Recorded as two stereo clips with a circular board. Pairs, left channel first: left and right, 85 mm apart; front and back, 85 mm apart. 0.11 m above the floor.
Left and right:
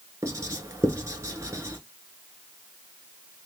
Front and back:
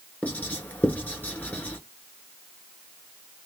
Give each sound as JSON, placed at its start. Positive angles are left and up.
{"t": 0.2, "sound": "writing", "azimuth_deg": -65, "distance_m": 1.0}